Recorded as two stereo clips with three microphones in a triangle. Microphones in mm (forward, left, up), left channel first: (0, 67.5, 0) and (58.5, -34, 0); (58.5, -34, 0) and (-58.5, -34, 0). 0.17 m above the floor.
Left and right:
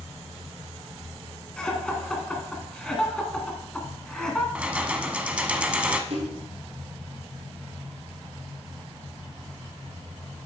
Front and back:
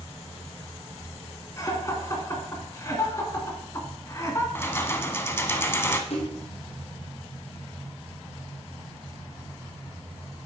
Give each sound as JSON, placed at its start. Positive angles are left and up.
{"t": 1.6, "sound": "laughter", "azimuth_deg": 40, "distance_m": 1.8}
{"t": 4.5, "sound": "keys jangling", "azimuth_deg": 0, "distance_m": 0.7}
{"t": 6.1, "sound": "a splash", "azimuth_deg": -30, "distance_m": 2.0}